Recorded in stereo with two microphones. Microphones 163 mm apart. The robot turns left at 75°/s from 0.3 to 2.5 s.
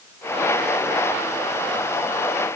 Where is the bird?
I don't hear a bird.